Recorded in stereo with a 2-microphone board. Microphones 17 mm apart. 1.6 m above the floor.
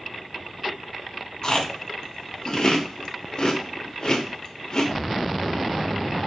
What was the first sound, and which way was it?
Chewing, 40° left (ahead or behind).